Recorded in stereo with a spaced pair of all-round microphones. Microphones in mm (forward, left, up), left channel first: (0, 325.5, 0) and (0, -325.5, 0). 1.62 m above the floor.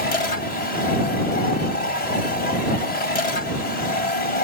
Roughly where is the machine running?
Left.